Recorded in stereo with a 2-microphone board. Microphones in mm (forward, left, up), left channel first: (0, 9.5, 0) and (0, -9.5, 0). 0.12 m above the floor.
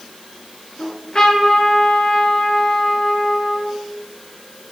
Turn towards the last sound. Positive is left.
turn(degrees=45)  # may be behind; listen again after turning